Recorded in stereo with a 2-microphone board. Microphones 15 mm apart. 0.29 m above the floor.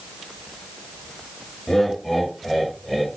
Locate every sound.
1.7 s laughter: 25° left (ahead or behind), 1.5 m; by 3.1 s 5° left (ahead or behind), 1.5 m